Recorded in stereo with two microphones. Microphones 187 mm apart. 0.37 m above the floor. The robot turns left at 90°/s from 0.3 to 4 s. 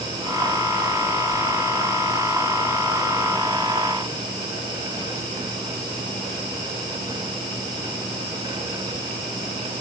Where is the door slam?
No door slam in this recording.